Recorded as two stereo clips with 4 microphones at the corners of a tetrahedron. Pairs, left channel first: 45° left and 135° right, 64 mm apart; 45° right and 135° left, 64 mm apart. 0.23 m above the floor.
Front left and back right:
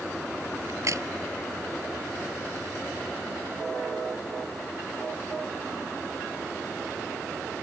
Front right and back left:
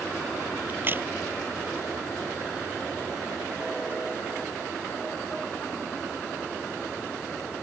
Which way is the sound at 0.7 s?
170° right.